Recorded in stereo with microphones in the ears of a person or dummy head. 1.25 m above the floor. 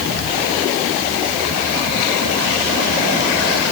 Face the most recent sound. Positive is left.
No sound to turn to.